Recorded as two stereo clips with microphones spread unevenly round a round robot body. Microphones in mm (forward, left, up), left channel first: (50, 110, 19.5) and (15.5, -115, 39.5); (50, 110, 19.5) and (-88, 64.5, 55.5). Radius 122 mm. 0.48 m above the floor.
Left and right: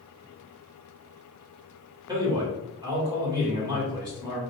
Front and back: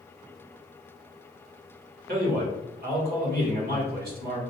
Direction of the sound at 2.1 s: 175° right.